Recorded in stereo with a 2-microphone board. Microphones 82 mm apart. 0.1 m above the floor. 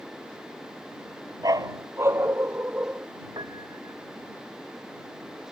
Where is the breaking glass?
I don't hear breaking glass.